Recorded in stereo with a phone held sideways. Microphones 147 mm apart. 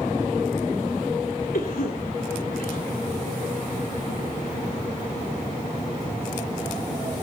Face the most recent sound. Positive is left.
turn(degrees=80)